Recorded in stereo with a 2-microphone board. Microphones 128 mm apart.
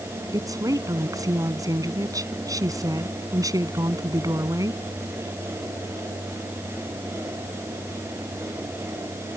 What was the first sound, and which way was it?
A woman speaking, 25° right (ahead or behind).